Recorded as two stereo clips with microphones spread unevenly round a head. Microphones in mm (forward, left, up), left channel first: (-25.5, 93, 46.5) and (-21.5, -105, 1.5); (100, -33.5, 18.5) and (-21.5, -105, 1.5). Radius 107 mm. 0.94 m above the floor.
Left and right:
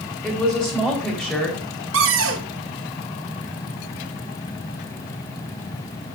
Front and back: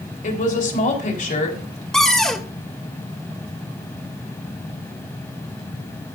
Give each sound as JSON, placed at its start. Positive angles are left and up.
{"t": 0.2, "sound": "a woman speaking", "azimuth_deg": 5, "distance_m": 3.5}
{"t": 1.9, "sound": "a cupboard door", "azimuth_deg": -55, "distance_m": 1.7}